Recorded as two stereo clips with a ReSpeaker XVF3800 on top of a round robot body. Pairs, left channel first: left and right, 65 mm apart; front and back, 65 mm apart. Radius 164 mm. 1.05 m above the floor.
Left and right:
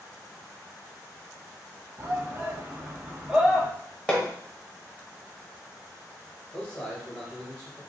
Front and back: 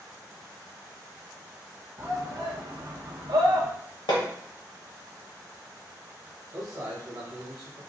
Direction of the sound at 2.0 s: 130° right.